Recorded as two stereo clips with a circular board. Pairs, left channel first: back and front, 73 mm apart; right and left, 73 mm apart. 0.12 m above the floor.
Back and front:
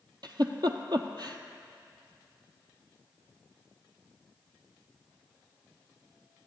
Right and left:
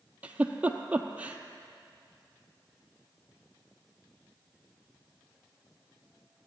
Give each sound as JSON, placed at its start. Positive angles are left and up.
{"t": 0.2, "sound": "a giggle", "azimuth_deg": 20, "distance_m": 0.6}